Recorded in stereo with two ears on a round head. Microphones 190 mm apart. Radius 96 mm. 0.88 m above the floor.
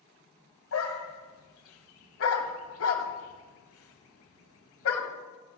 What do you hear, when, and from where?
0.7 s a dog barking: 70° left (ahead or behind), 1.5 m